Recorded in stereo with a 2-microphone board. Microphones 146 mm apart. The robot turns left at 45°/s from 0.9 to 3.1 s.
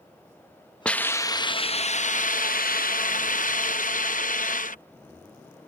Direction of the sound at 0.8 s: 170° left.